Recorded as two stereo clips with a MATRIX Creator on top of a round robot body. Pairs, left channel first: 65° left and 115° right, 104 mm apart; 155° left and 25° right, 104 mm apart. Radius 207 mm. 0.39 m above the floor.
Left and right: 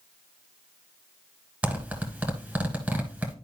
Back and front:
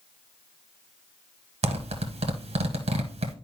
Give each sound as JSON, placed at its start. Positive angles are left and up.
{"t": 1.6, "sound": "a zipper", "azimuth_deg": -35, "distance_m": 1.1}